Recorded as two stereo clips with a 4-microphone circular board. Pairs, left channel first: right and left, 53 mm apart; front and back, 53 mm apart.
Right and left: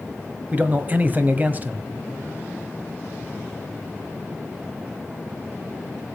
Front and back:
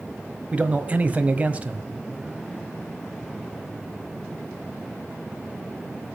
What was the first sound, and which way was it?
A man speaking, 130° left.